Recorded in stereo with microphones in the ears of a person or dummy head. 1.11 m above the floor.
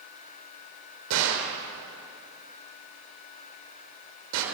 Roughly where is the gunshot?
Right.